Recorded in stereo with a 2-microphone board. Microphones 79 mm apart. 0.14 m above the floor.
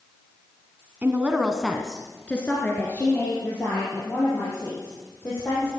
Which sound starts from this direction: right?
A woman speaking, at 1.0 s.